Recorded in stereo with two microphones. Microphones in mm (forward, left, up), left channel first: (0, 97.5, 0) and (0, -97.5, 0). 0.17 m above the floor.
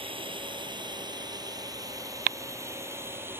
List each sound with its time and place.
0.0 s a drone: 25° right (ahead or behind); by 3.4 s 10° right (ahead or behind)